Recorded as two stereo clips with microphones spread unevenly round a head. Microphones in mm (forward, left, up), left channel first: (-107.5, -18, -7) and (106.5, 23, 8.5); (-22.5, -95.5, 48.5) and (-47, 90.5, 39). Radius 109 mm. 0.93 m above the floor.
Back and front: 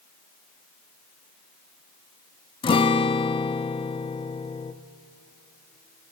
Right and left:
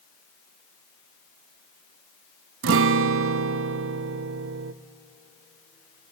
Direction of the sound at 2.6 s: 120° left.